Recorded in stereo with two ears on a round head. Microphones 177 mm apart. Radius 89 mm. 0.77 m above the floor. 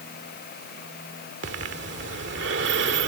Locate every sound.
1.4 s breathing: 65° right (ahead or behind)